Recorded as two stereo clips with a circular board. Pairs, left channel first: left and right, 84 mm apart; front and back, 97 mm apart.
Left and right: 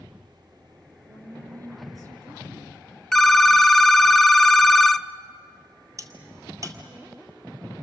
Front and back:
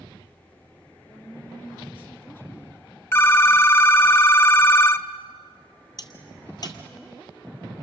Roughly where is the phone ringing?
Ahead.